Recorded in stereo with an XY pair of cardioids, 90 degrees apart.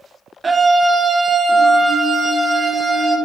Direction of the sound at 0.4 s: 30° right.